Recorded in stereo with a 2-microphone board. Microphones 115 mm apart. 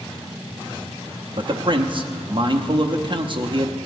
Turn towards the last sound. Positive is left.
turn(degrees=-45)  # may be behind; listen again after turning